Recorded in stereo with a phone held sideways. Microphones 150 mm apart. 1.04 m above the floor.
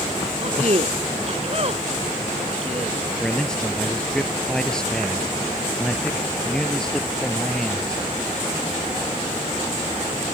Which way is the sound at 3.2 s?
5° left (ahead or behind).